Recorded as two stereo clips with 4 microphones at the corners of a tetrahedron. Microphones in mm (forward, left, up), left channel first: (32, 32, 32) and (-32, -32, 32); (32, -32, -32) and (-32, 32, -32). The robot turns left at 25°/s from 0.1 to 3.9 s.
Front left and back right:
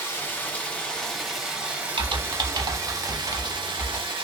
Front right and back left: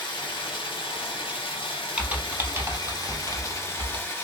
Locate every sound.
0.0 s running water: 15° right, 0.9 m; by 4.2 s 110° right, 0.9 m
2.0 s typing on a keyboard: 150° right, 0.5 m; by 4.0 s 165° left, 0.5 m